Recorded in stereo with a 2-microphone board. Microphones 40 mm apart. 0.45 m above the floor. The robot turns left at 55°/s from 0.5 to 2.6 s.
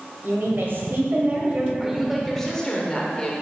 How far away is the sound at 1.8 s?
About 1.0 m.